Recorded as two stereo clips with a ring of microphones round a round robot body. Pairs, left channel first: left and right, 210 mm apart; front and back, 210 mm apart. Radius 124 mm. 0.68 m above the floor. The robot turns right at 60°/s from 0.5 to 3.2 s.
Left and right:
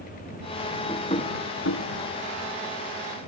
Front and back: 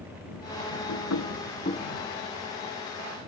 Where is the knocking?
15° left; by 3.3 s 155° left.